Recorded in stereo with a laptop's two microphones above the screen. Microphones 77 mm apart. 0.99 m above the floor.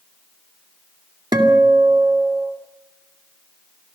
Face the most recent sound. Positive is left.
turn(degrees=-70)  # may be behind; listen again after turning